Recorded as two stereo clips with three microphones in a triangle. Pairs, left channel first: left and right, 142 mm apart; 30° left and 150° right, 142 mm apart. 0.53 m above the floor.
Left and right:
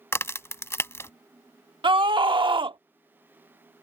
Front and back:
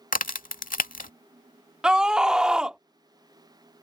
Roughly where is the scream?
Right.